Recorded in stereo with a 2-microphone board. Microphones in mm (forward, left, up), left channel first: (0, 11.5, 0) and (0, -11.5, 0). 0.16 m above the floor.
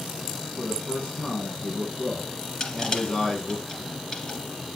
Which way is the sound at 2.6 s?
30° left (ahead or behind).